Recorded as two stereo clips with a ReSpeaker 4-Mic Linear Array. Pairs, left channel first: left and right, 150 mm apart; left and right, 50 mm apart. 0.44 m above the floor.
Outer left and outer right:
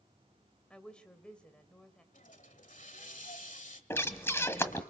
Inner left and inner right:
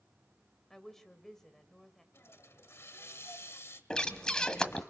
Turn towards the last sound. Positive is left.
turn(degrees=15)  # may be behind; listen again after turning